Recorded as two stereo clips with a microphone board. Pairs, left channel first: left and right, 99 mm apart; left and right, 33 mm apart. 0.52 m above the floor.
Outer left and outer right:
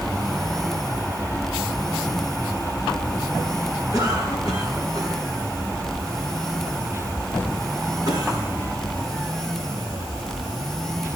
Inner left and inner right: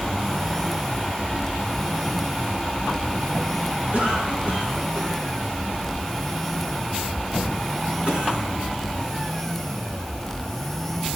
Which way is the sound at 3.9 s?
40° right (ahead or behind).